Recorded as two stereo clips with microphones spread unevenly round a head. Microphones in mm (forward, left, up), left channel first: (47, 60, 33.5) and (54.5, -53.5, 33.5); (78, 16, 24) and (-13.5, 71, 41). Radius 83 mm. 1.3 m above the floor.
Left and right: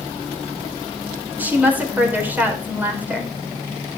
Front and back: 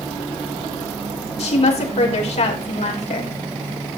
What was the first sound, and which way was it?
A woman speaking, 10° right.